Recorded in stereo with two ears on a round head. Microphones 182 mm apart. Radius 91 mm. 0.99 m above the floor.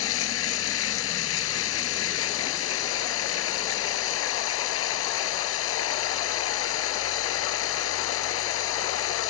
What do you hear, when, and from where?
0.0 s running water: 80° left